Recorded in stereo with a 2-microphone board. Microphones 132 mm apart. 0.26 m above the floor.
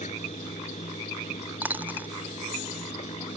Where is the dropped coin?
15° right (ahead or behind).